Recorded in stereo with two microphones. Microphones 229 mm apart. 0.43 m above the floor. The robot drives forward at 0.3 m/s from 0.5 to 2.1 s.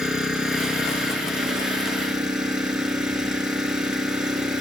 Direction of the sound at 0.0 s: 5° right (ahead or behind).